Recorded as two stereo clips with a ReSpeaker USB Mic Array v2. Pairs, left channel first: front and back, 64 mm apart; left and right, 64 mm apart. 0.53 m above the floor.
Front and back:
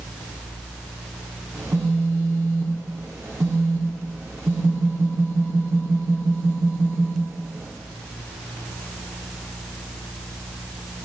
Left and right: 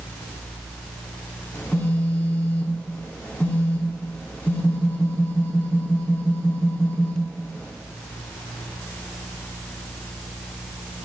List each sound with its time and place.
1.5 s a phone buzzing: 140° left, 0.6 m